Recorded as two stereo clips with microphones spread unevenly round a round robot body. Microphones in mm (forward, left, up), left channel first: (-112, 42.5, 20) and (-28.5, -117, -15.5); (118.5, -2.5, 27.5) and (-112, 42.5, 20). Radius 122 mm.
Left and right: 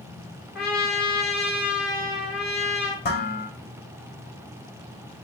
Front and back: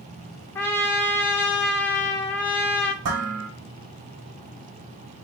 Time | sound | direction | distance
0.6 | a trumpet | 70° left | 1.3 m
3.0 | dishes clattering | 155° left | 2 m